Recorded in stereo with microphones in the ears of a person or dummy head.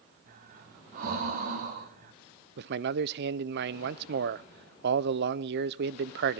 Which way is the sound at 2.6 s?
60° right (ahead or behind).